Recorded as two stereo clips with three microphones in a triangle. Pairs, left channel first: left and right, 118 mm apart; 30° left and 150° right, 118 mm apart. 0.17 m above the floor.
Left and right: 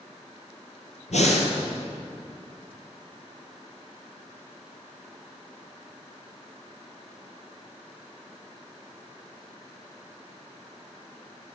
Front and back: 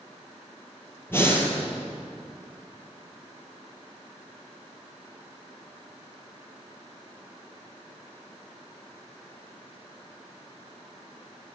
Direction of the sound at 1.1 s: 100° left.